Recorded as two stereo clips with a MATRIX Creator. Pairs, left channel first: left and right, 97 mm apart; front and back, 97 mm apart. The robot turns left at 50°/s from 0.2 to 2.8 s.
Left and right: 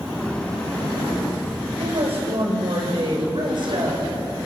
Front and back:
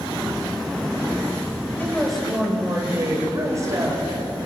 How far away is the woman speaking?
About 6 m.